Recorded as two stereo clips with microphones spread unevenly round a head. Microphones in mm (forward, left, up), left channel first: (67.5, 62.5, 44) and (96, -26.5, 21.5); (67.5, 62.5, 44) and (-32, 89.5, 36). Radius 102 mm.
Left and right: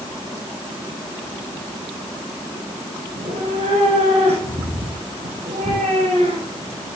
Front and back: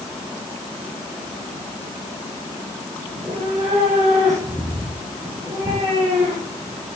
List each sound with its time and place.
3.1 s a cat meowing: 120° right, 4.5 m